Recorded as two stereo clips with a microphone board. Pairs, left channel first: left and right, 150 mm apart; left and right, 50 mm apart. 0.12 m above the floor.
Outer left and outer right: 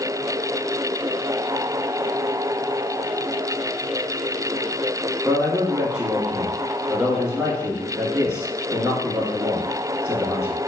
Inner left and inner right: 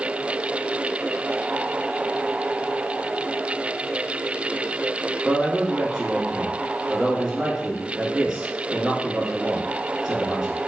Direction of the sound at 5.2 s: 5° right (ahead or behind).